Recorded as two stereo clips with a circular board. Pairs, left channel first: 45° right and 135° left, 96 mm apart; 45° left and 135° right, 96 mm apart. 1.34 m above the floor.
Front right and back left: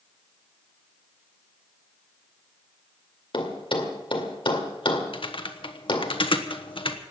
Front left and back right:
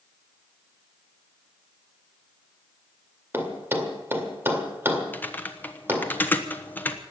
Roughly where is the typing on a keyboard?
Ahead right.